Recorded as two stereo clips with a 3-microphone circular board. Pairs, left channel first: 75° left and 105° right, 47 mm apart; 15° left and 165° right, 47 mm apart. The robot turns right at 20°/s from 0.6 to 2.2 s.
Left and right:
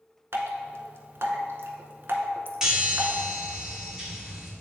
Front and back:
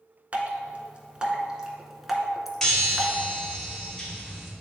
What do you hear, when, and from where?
0.3 s dripping: 110° right, 0.8 m; by 3.1 s 80° right, 0.8 m
2.6 s a chime: 45° right, 1.1 m